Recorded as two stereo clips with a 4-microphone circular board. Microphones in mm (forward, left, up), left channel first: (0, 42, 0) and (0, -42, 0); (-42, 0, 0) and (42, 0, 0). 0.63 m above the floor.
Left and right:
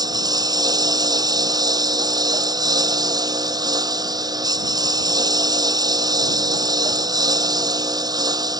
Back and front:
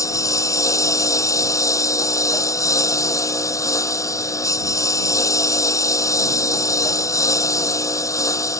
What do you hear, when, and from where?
0.0 s a lawn mower: 130° right